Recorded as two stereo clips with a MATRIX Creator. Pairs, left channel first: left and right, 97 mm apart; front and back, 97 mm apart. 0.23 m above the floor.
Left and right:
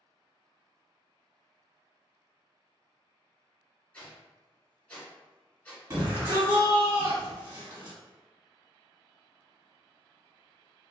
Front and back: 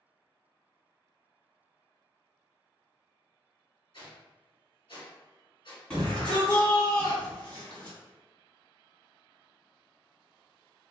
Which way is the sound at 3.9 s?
15° left.